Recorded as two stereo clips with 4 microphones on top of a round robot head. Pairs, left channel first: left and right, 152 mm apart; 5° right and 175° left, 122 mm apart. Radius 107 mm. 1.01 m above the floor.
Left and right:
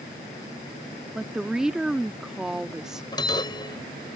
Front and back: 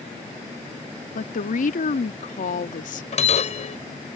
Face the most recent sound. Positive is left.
turn(degrees=20)